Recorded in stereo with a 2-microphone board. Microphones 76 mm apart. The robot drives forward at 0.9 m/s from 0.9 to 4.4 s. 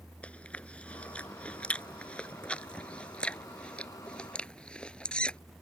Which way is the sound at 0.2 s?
15° left (ahead or behind).